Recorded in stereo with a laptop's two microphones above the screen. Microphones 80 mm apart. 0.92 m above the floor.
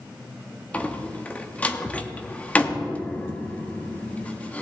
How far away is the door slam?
About 1.0 m.